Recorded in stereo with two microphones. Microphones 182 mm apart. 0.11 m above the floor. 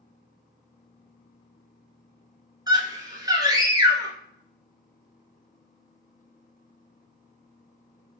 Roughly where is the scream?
Right.